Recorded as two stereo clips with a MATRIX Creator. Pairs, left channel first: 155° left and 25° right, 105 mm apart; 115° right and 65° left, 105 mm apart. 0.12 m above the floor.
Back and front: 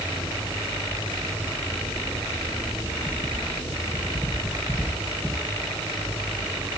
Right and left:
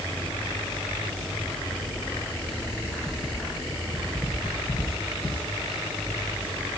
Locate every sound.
Only background noise.